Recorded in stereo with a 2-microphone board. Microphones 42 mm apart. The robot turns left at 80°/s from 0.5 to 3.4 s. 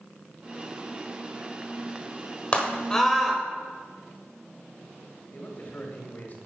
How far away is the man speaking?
About 1.8 m.